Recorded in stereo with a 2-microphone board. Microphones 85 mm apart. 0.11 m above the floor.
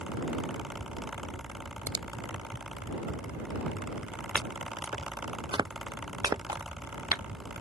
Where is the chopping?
55° right (ahead or behind).